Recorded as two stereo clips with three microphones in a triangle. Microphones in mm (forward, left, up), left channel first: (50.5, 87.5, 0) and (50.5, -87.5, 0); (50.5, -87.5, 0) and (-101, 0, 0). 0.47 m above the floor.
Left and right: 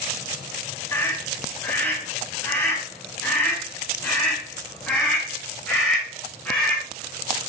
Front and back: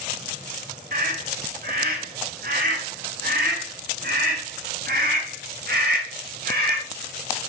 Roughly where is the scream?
Behind.